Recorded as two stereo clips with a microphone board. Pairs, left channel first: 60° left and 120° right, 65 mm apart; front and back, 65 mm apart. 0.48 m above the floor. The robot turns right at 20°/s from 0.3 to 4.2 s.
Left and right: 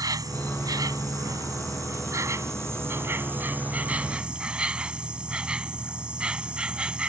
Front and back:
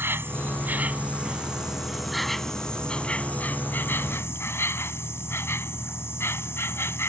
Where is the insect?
125° right; by 7.1 s 50° right.